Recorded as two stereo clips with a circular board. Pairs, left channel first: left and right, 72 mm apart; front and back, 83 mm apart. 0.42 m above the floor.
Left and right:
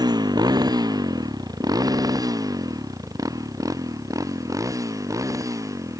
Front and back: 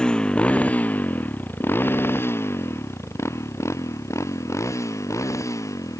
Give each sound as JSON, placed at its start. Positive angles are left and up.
{"t": 0.0, "sound": "a motorcycle", "azimuth_deg": -80}